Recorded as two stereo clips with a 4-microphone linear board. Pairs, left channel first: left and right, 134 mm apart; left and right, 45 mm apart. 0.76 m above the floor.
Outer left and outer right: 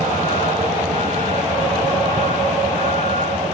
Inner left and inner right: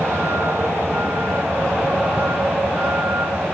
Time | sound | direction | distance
0.0 | a vehicle | 75° right (ahead or behind) | ?